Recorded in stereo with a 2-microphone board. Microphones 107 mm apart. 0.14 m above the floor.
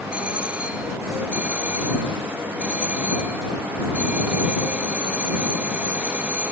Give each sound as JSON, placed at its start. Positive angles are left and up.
{"t": 0.1, "sound": "a doorbell", "side_deg": -15}